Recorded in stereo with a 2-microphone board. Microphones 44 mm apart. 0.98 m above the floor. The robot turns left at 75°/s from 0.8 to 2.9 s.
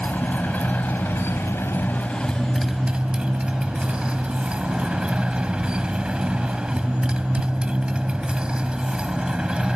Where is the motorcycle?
140° left; by 9.8 s 20° right.